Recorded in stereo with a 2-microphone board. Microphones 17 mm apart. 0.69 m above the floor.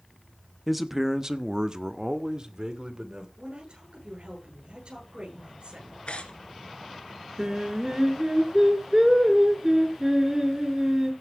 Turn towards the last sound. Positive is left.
turn(degrees=-35)  # may be behind; listen again after turning